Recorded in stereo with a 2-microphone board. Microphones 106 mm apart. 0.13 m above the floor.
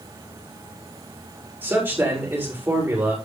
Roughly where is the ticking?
No ticking in this recording.